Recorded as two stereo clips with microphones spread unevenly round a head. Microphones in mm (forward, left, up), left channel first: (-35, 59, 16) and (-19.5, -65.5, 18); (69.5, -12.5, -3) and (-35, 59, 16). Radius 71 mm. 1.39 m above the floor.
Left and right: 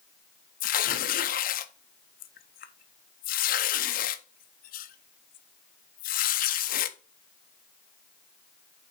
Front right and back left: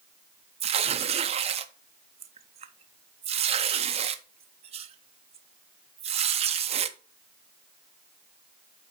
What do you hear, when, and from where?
0.6 s tearing paper: 105° left, 0.7 m